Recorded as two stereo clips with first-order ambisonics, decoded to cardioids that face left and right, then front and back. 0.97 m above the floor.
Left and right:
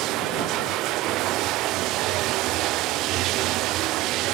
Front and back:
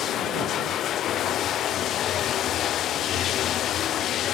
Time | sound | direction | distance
0.0 | running water | 50° right | ?